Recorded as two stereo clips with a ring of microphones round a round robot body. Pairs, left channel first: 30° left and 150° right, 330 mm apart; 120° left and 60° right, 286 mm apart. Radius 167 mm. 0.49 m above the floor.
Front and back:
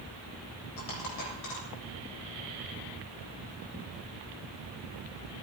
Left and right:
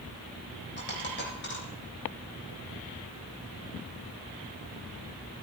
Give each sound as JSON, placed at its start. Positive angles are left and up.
{"t": 0.8, "sound": "a dropped coin", "azimuth_deg": 70, "distance_m": 8.0}